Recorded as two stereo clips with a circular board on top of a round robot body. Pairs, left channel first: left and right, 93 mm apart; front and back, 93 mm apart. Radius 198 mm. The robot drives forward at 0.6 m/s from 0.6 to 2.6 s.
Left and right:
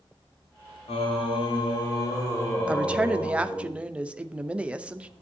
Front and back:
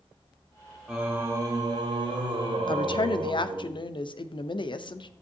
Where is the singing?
95° left, 0.6 m; by 3.7 s 150° left, 1.3 m.